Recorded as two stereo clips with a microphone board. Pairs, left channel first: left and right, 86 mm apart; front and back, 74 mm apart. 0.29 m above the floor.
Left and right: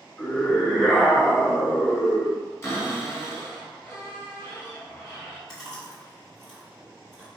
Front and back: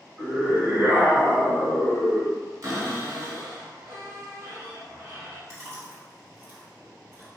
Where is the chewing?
175° left, 1.9 m.